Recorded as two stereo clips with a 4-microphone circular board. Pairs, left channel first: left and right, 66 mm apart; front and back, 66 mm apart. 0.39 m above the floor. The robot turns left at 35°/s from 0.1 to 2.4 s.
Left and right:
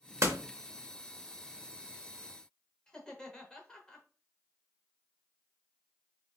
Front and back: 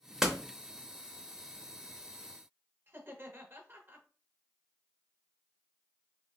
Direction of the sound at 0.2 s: 100° right.